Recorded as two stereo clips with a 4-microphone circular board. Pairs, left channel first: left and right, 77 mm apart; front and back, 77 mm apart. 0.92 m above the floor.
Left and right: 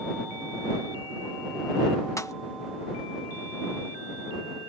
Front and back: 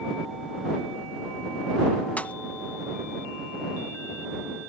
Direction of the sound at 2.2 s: 65° left.